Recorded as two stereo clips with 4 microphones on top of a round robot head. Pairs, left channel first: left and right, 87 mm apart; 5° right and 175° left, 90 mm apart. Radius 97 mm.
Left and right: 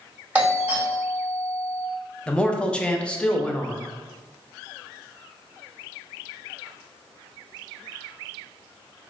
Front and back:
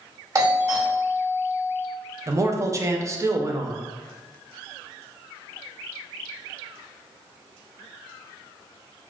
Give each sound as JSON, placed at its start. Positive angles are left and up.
{"t": 0.3, "sound": "a doorbell", "azimuth_deg": -155, "distance_m": 1.5}
{"t": 2.3, "sound": "a man speaking", "azimuth_deg": 160, "distance_m": 0.6}